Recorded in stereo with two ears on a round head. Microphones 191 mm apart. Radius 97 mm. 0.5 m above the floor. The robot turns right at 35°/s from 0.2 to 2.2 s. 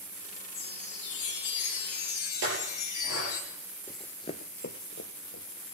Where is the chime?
55° left, 2 m; by 3.4 s 110° left, 2 m.